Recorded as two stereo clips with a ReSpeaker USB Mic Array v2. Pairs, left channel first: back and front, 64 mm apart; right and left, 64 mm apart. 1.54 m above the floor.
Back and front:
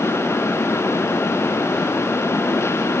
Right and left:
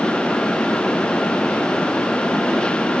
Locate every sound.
Only background noise.